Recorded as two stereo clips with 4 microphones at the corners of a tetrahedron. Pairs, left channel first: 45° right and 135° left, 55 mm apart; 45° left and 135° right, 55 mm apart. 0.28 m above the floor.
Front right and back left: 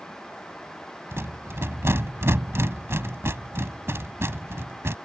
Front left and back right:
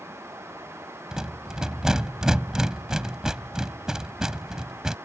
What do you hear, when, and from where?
1.1 s a rattle: 150° left